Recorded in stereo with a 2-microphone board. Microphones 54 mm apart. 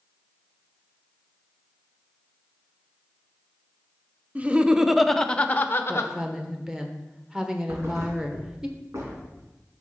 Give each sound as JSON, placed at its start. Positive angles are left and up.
{"t": 4.3, "sound": "laughter", "side_deg": -25, "distance_m": 0.8}
{"t": 5.9, "sound": "a woman speaking", "side_deg": -10, "distance_m": 1.2}
{"t": 7.7, "sound": "a thud", "side_deg": -55, "distance_m": 3.0}